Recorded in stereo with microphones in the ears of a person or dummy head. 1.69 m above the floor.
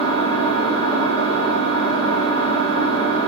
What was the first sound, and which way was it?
An engine running, 35° right (ahead or behind).